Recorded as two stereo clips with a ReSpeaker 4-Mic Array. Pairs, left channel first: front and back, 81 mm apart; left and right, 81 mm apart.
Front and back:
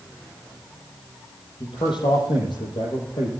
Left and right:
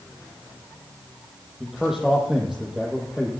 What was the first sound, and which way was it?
A man speaking, 5° right.